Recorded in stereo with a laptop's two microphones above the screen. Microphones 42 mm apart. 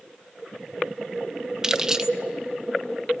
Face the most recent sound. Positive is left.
turn(degrees=-15)  # may be behind; listen again after turning